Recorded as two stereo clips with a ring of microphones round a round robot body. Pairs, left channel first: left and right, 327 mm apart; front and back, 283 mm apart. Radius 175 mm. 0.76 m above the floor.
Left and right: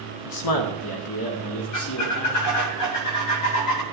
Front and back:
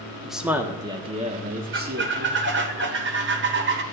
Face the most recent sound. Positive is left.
turn(degrees=130)